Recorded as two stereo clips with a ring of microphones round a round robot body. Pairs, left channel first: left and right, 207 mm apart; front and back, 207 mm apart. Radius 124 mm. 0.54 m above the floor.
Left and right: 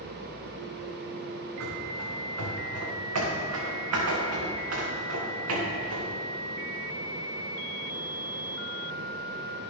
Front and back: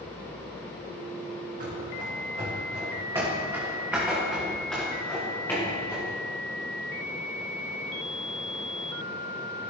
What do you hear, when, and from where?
1.6 s running footsteps: 125° right, 3.5 m; by 6.1 s 75° right, 4 m